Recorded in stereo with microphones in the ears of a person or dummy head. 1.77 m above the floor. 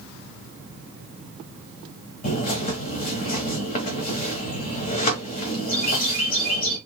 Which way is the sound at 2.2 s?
40° left (ahead or behind).